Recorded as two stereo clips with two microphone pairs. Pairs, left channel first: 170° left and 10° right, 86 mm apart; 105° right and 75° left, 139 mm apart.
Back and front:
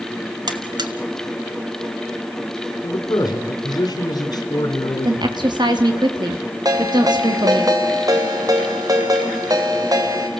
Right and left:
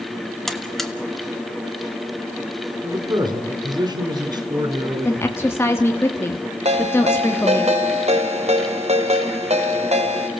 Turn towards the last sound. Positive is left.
turn(degrees=35)